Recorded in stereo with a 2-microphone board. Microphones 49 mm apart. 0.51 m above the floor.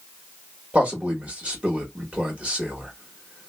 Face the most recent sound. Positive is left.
turn(degrees=-25)  # may be behind; listen again after turning